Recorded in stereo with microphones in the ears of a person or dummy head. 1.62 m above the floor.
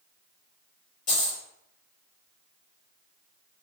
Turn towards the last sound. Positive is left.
turn(degrees=45)  # may be behind; listen again after turning